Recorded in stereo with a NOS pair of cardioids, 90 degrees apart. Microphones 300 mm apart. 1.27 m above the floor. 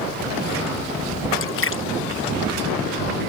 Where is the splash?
45° left.